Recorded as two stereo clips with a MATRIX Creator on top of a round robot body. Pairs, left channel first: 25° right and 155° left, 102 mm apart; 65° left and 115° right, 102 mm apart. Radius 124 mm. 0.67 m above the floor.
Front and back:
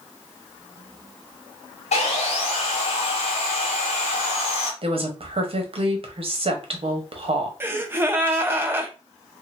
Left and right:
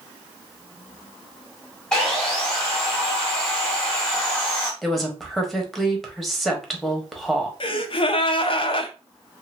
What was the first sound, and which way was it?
Sawing, 15° right.